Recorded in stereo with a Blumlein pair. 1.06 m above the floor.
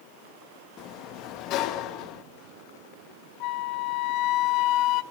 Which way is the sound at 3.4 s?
40° left.